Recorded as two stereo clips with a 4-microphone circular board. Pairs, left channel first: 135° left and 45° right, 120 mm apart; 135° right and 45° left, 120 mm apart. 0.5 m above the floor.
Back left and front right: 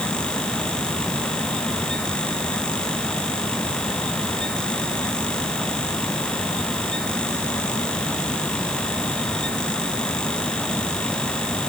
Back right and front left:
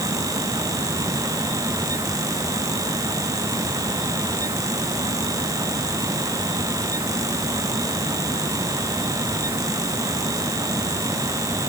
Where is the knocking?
I don't hear knocking.